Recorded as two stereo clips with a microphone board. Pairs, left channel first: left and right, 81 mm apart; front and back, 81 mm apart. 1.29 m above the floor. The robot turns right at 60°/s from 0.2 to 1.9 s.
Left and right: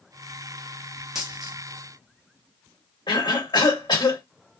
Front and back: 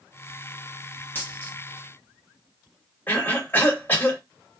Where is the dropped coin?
15° right, 1.0 m; by 1.6 s 10° left, 1.0 m.